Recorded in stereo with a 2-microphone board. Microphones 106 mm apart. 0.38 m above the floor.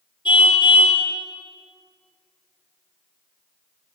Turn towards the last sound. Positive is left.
turn(degrees=50)  # may be behind; listen again after turning